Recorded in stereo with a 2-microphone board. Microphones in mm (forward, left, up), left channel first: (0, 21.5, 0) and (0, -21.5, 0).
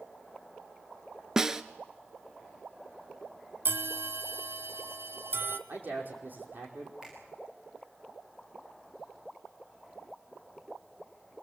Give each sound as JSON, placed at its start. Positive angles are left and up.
{"t": 1.4, "sound": "a snare drum", "side_deg": -15, "distance_m": 0.9}
{"t": 3.6, "sound": "a bell", "side_deg": -65, "distance_m": 1.0}
{"t": 5.7, "sound": "a man speaking", "side_deg": -50, "distance_m": 5.0}
{"t": 7.0, "sound": "a finger snap", "side_deg": -10, "distance_m": 9.0}